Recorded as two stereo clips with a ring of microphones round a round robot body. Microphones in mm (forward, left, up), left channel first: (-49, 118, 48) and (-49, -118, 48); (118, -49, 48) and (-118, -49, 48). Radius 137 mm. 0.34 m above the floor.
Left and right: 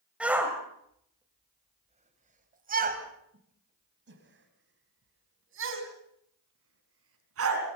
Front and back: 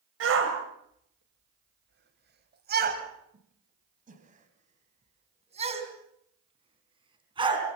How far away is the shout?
About 2.5 m.